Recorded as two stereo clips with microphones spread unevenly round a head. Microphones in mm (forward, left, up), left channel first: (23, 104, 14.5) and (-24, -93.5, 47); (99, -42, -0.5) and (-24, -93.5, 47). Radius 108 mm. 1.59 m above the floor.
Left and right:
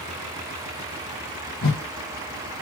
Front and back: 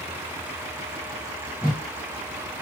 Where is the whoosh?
110° left, 0.9 m.